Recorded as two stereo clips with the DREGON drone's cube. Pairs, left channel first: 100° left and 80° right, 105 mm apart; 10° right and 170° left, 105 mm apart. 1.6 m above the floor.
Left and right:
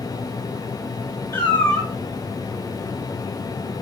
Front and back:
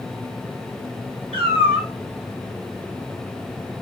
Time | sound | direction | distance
1.3 | a cat meowing | 160° left | 3.5 m